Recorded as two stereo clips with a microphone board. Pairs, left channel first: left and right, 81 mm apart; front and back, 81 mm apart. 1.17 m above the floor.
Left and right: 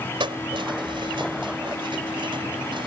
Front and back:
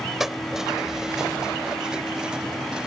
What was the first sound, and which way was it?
Keys jangling, 95° right.